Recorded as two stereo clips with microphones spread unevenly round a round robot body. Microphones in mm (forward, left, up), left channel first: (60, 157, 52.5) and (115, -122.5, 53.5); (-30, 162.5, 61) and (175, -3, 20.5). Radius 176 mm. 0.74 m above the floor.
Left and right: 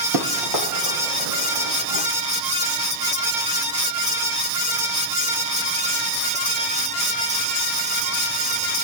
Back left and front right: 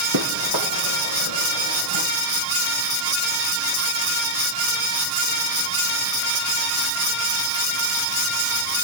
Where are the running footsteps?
90° right, 1.8 m; by 2.1 s 75° right, 2.5 m.